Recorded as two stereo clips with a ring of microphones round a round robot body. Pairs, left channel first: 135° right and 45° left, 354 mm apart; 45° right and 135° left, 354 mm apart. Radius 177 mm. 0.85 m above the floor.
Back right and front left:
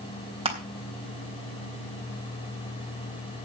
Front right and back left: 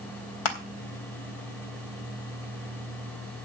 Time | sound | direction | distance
0.5 | crushing | 30° right | 3.5 m